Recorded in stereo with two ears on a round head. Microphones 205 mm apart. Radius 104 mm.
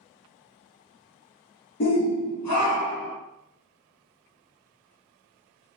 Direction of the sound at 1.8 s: 45° left (ahead or behind).